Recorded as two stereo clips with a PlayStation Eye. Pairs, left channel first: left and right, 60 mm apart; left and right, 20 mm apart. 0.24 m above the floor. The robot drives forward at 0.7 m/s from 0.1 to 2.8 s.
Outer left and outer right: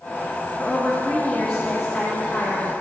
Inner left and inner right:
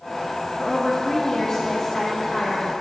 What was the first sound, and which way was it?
A woman speaking, 10° left (ahead or behind).